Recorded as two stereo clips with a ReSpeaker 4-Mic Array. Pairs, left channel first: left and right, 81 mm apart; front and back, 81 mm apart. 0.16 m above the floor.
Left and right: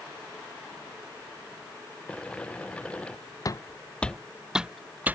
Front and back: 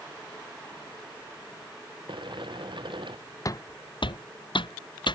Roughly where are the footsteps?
Ahead left.